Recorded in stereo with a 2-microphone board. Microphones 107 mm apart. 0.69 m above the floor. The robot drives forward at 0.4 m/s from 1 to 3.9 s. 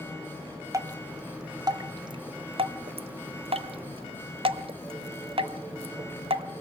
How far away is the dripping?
About 1.1 m.